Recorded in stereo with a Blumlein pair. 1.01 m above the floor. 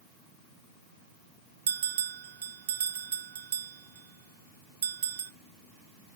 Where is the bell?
60° right, 0.5 m.